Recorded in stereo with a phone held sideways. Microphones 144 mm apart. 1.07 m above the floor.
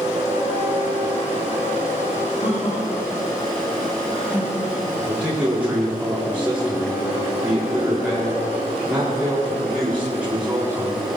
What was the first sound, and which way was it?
Laughter, 60° left (ahead or behind).